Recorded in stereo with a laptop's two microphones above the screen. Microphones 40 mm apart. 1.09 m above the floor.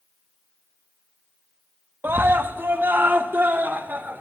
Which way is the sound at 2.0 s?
60° right (ahead or behind).